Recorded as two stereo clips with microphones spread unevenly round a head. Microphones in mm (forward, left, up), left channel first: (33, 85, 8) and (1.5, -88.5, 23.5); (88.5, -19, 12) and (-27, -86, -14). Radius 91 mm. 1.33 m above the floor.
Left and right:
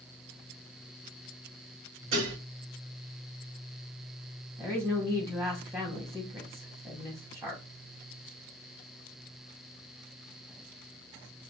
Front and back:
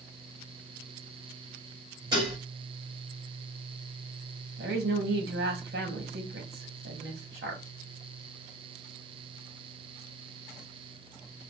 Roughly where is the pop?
No pop in this recording.